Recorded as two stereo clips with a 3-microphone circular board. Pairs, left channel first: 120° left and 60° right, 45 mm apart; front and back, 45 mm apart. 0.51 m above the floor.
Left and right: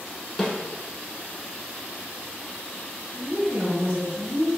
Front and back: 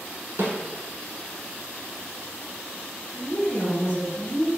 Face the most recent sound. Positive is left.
turn(degrees=-25)